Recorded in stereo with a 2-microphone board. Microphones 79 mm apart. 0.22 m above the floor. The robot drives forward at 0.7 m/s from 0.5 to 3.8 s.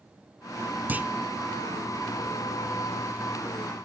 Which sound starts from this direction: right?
A clunk, at 0.9 s.